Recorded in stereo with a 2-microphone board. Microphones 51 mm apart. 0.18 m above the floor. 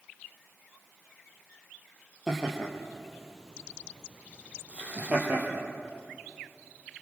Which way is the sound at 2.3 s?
5° left (ahead or behind).